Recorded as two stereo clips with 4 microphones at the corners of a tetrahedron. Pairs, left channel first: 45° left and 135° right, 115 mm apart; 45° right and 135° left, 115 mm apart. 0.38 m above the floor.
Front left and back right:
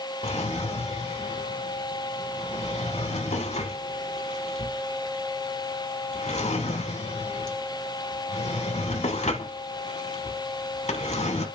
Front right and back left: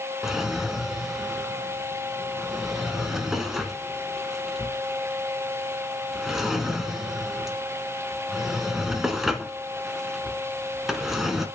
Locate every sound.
0.2 s a drawer: 45° left, 1.3 m